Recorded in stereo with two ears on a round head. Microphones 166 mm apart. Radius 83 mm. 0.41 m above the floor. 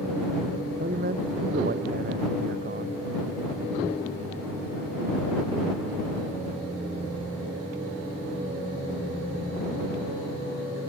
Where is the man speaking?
50° right (ahead or behind).